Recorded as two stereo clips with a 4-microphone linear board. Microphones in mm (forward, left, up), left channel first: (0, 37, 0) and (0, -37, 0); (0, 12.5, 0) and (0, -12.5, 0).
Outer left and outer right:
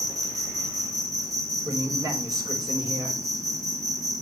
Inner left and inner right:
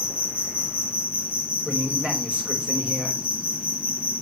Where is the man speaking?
60° right (ahead or behind), 4.5 m.